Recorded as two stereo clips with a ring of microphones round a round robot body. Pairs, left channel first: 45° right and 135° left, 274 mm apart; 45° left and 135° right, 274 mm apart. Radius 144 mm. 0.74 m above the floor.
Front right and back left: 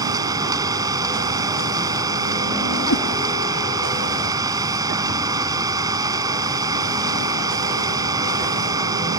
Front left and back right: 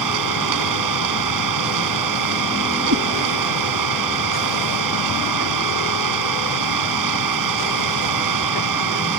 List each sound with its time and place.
0.0 s an engine running: 150° right
2.9 s a cat meowing: 90° right